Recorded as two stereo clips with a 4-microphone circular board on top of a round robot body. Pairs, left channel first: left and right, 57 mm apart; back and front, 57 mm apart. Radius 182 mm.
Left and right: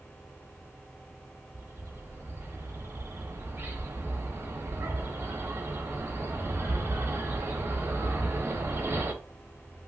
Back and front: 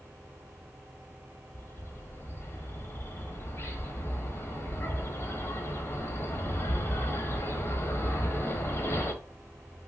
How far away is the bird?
About 0.9 m.